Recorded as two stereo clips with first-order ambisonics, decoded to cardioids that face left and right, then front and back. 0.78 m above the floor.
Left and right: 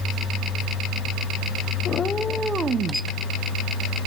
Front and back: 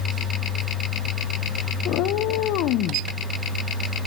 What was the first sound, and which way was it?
A cat meowing, 35° left.